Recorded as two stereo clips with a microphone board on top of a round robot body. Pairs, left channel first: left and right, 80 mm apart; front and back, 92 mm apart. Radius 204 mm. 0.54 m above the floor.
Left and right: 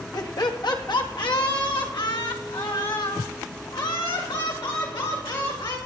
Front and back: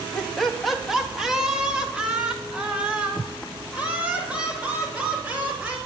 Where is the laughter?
80° left, 1.5 m; by 5.8 s 105° left, 6 m.